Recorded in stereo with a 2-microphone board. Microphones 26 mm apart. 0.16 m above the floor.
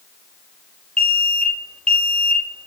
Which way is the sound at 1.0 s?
40° left (ahead or behind).